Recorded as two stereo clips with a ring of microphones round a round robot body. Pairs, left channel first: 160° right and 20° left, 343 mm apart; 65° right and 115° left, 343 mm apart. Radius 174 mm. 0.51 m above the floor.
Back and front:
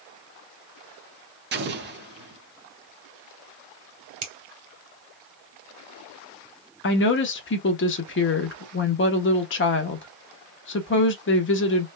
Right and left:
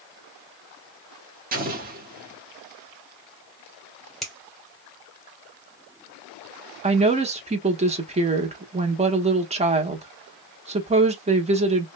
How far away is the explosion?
About 1.1 m.